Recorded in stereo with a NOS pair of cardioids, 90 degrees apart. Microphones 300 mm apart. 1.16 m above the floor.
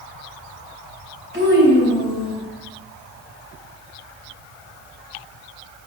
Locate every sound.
1.3 s a child speaking: 40° right, 3 m; by 2.4 s 35° right, 4 m